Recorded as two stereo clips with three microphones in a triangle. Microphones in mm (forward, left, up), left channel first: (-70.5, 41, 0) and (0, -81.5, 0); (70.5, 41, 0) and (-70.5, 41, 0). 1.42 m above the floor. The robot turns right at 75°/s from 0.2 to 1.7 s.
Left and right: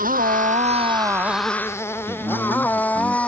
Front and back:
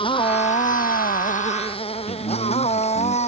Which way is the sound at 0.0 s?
50° right.